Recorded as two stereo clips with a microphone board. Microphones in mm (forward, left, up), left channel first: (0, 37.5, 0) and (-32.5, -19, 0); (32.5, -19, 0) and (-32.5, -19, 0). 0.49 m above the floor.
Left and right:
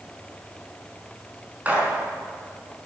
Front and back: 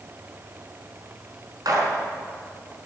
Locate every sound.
1.6 s a gunshot: 175° left, 4.5 m